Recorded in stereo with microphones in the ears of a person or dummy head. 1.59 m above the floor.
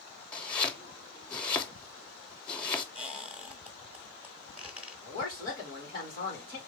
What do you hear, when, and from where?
0.3 s chopping: 10° left (ahead or behind), 0.6 m
3.0 s a squeak: 5° right (ahead or behind), 0.7 m
5.0 s a woman speaking: 25° left (ahead or behind), 3 m